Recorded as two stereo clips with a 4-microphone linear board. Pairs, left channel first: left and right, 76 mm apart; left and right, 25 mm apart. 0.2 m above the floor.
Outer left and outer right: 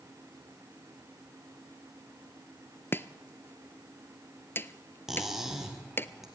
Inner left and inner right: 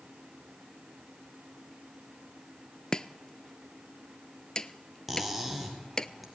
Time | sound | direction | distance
2.9 | chopping | 30° left (ahead or behind) | 0.5 m
5.1 | cutlery clinking | 5° right (ahead or behind) | 2.5 m